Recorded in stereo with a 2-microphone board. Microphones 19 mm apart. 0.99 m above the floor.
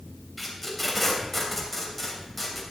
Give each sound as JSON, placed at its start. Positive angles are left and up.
{"t": 0.4, "sound": "tape being pulled", "side_deg": 10, "distance_m": 2.5}